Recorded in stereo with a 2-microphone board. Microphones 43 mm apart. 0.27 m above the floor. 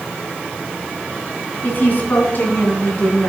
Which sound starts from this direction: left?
A woman speaking, at 1.6 s.